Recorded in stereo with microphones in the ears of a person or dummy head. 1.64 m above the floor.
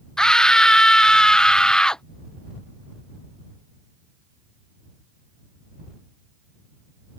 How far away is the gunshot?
No gunshot in this recording.